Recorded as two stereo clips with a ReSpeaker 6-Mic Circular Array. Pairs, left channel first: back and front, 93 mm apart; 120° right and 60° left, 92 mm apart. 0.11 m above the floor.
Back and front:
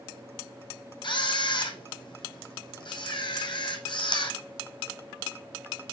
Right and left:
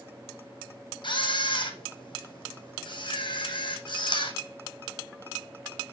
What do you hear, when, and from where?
1.0 s a camera shutter: 150° right, 1.2 m